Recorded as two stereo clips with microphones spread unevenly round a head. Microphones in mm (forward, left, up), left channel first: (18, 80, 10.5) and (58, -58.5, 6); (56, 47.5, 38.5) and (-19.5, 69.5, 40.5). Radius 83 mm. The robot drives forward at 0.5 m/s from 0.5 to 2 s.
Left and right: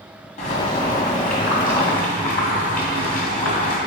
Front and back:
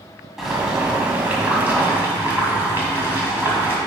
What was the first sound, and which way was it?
Boiling, 80° left.